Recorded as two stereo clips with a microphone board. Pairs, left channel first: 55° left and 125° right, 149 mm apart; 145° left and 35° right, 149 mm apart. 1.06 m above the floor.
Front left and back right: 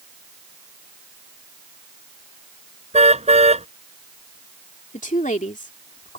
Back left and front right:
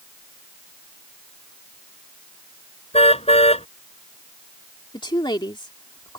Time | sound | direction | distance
2.9 | a car horn | 170° right | ?
4.9 | a woman speaking | 85° left | ?